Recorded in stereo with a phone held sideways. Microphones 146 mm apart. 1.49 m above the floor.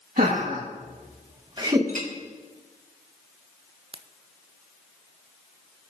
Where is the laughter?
75° right (ahead or behind), 2 m; by 1.8 s 25° right (ahead or behind), 1.6 m.